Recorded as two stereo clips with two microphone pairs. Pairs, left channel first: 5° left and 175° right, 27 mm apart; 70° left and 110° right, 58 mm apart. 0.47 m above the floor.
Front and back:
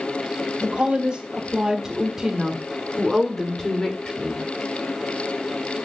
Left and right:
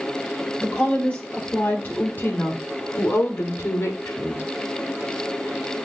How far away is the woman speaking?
About 2.5 m.